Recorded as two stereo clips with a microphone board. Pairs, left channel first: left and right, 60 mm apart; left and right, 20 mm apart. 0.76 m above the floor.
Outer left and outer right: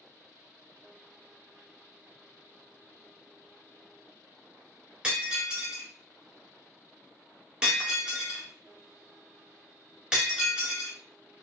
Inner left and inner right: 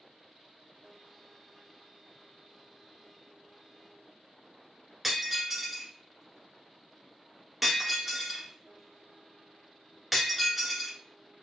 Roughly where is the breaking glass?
Centre.